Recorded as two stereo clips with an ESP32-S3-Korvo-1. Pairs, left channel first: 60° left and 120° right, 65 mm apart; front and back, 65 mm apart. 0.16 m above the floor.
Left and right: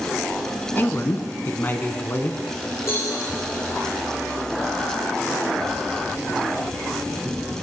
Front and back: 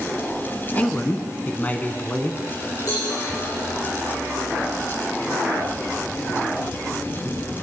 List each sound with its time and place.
0.8 s a man speaking: 40° left, 1.2 m
2.9 s a cowbell: 15° left, 5.5 m